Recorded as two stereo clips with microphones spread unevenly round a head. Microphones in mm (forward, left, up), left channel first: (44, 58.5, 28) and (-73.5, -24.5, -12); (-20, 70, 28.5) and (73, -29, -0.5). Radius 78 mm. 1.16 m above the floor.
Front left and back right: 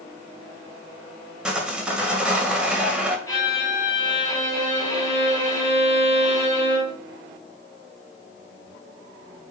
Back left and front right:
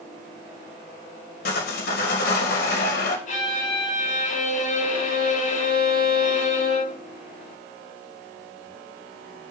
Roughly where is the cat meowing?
No cat meowing in this recording.